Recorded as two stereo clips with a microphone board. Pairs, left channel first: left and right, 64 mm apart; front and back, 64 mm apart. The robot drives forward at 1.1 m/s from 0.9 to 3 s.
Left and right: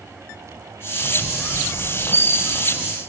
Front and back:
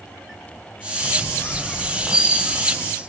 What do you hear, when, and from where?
1.0 s a squeak: 35° left, 1.5 m; by 2.9 s 145° left, 1.6 m